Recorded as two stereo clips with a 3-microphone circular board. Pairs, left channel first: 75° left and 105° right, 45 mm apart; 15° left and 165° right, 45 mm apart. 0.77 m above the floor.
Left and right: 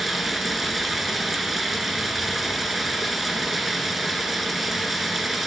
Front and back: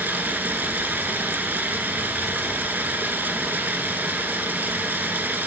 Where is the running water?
170° left, 0.9 m.